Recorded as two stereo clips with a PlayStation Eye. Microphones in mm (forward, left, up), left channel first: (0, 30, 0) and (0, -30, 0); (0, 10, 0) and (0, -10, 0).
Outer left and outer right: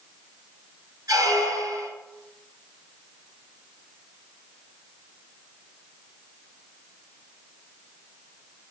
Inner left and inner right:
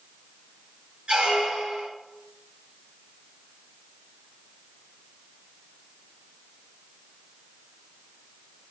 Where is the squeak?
80° right, 2 m.